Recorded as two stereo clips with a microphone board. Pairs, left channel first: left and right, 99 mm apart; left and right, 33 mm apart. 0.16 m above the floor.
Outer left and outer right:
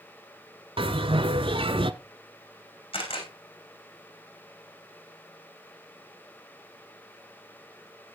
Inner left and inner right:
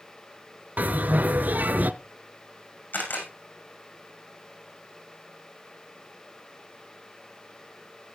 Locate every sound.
0.8 s a bell: 65° right (ahead or behind), 0.8 m
2.9 s a camera shutter: 65° left (ahead or behind), 6.5 m